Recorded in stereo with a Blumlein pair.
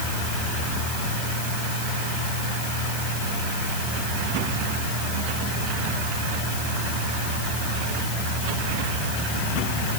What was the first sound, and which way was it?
Only background noise.